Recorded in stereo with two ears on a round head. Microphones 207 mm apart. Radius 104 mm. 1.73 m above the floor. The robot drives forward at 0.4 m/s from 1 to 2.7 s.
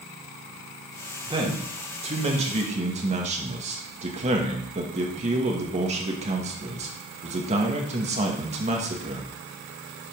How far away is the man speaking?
About 2.5 m.